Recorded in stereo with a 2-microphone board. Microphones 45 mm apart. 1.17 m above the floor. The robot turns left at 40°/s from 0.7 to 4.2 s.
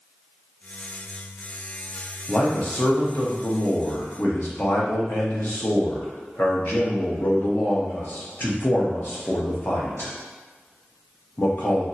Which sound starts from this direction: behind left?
A man speaking, at 2.3 s.